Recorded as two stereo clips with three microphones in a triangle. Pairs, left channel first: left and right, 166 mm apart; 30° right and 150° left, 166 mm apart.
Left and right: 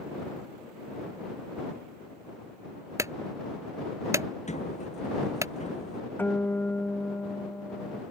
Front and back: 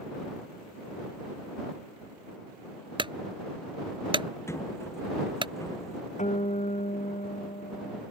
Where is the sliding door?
45° left.